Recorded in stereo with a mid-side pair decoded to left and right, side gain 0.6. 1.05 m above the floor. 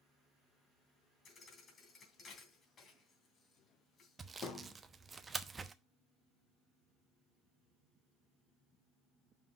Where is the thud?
40° left, 2.5 m.